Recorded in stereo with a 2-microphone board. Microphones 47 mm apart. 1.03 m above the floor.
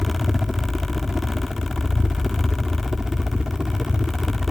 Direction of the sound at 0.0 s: 10° right (ahead or behind).